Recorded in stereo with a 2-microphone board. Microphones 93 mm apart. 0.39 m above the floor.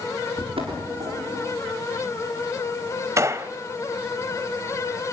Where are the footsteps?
80° right, 8 m.